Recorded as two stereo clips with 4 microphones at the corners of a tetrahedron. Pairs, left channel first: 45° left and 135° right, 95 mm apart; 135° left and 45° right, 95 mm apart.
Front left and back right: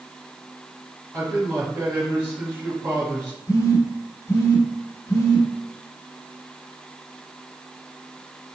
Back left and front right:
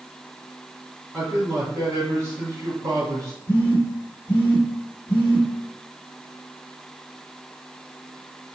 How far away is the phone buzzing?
About 1.1 m.